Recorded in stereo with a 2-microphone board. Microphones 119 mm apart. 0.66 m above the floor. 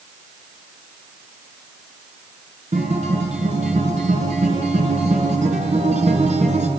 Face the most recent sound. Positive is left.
turn(degrees=-85)